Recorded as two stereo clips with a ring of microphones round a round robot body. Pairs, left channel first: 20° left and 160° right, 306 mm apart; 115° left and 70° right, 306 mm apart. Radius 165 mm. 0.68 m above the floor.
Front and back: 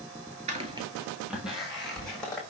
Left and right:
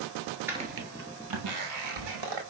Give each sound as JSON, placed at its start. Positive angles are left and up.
{"t": 0.5, "sound": "footsteps", "azimuth_deg": -140, "distance_m": 0.6}